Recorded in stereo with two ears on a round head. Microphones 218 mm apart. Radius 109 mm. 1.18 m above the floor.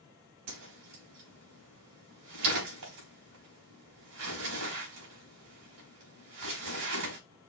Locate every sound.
0.5 s a whoosh: 70° right (ahead or behind), 4 m